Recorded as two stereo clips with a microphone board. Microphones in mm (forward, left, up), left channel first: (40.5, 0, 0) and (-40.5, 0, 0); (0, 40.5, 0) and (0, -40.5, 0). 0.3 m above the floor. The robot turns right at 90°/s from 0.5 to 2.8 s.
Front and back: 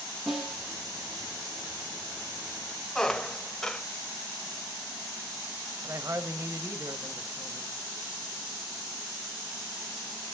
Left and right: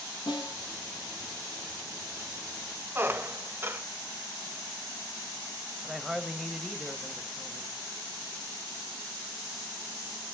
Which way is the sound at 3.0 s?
75° right.